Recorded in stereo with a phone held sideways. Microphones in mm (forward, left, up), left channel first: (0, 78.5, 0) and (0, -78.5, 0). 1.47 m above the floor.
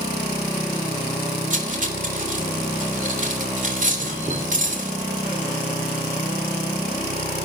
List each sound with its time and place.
1.5 s cutlery clinking: 50° right (ahead or behind), 2.5 m